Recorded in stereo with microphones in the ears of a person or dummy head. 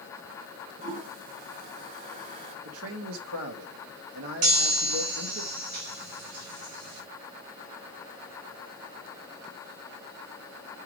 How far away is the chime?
About 4.5 m.